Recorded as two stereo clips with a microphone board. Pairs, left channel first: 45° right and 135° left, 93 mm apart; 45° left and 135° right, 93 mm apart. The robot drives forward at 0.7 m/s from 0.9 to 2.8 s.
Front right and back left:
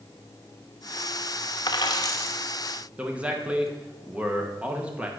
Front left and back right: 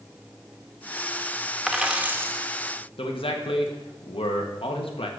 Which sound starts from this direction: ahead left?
A man speaking, at 3.0 s.